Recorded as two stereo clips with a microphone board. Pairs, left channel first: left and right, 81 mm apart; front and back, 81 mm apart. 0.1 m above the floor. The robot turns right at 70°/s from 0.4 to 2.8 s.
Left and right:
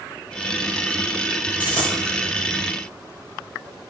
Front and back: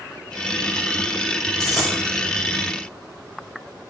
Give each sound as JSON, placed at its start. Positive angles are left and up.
{"t": 1.6, "sound": "a dropped coin", "azimuth_deg": 80, "distance_m": 3.0}